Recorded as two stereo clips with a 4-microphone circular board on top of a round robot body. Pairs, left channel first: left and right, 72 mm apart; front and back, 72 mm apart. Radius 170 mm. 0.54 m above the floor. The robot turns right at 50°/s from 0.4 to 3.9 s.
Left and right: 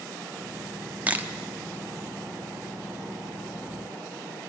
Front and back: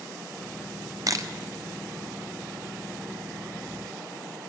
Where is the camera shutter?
155° right, 1.5 m; by 1.3 s 145° right, 1.5 m.